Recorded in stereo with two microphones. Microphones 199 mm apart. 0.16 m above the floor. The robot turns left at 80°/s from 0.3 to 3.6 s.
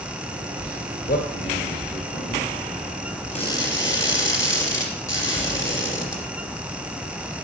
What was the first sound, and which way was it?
A man speaking, 50° left (ahead or behind).